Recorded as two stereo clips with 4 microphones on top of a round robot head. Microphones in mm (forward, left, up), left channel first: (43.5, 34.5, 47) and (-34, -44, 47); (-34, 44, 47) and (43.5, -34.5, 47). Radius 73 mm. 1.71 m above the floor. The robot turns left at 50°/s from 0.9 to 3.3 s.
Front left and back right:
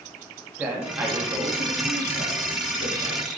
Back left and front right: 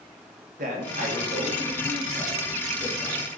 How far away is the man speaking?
About 1.7 m.